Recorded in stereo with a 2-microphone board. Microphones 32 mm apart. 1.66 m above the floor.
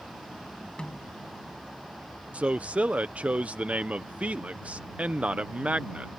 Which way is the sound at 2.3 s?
45° right (ahead or behind).